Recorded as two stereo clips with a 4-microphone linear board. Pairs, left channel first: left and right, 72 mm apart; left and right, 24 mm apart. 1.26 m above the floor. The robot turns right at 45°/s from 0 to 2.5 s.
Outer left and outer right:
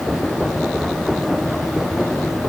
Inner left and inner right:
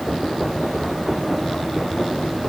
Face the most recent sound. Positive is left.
No sound to turn to.